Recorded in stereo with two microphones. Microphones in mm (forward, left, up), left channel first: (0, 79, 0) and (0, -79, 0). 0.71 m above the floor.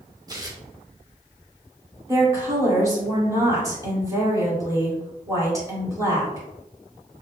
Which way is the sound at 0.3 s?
25° right (ahead or behind).